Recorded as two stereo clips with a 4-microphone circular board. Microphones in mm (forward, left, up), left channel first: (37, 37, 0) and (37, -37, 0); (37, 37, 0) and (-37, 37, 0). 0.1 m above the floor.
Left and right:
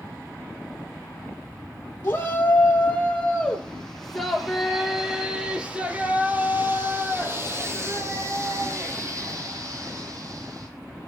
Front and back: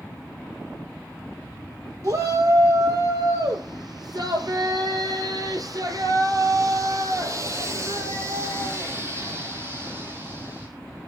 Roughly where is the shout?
Behind left.